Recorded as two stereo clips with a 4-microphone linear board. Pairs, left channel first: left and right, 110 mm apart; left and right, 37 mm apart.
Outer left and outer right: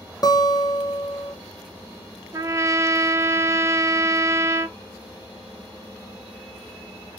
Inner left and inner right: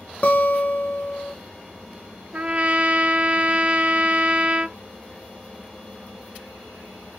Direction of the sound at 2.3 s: 30° right (ahead or behind).